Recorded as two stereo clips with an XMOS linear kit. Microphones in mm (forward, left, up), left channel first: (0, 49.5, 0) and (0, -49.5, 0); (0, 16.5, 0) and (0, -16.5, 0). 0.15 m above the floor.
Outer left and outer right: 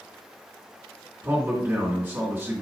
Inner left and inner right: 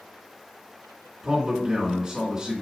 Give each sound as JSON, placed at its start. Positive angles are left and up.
{"t": 1.2, "sound": "a man speaking", "side_deg": -20, "distance_m": 1.9}